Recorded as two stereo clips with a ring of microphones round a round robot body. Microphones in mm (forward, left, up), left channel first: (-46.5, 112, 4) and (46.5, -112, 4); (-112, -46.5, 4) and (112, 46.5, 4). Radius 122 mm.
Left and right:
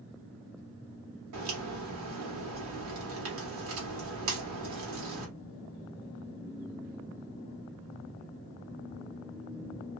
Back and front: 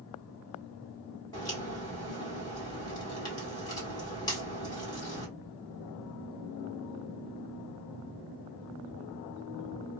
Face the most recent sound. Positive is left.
turn(degrees=-85)